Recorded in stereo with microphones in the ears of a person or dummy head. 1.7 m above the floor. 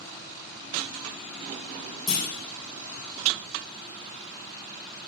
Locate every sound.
2.1 s a clunk: 20° left (ahead or behind), 2.5 m